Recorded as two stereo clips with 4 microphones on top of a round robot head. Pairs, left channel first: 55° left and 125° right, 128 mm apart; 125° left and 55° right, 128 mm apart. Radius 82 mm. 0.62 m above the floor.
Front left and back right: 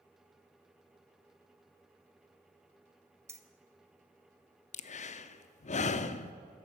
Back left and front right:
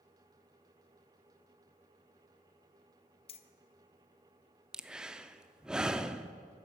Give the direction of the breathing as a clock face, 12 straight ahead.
11 o'clock.